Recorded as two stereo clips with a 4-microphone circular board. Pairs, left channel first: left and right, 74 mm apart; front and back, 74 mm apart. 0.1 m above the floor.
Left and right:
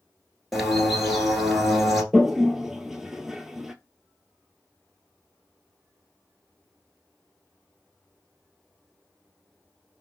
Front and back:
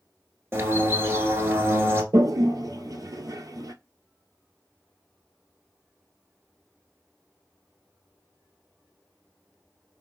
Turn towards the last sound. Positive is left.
turn(degrees=-175)